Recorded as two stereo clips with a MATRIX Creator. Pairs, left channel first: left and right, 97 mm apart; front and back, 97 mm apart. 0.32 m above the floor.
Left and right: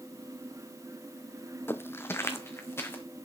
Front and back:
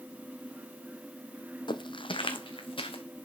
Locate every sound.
1.7 s footsteps: 25° left, 0.5 m